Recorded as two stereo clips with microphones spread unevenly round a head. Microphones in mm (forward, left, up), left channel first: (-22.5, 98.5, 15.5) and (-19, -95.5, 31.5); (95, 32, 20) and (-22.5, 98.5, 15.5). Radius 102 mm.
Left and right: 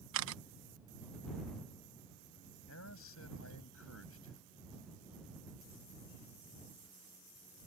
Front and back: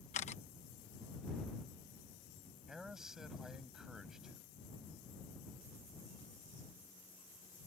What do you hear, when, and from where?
0.1 s a camera shutter: 80° right
2.7 s a man speaking: 65° left